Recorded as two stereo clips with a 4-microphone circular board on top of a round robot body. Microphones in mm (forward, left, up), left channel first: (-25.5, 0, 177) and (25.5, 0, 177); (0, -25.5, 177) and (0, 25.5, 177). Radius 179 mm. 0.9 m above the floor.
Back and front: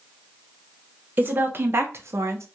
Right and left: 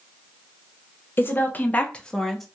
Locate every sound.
1.2 s a woman speaking: 50° right, 1.3 m; by 2.5 s 5° right, 1.1 m